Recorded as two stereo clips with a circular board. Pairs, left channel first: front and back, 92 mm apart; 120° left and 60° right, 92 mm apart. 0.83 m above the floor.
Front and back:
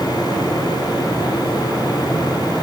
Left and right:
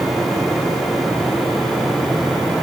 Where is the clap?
No clap in this recording.